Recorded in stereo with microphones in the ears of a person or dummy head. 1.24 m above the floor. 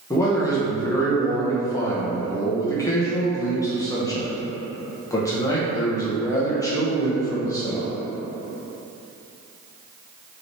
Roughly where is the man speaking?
Centre.